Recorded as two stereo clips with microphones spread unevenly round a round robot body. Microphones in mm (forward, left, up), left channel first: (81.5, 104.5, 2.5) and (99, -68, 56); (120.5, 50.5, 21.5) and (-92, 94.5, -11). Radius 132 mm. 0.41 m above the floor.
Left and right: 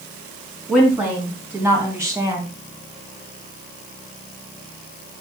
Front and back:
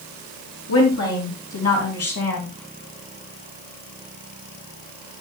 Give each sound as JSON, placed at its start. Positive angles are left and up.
{"t": 0.7, "sound": "a woman speaking", "azimuth_deg": 5, "distance_m": 4.0}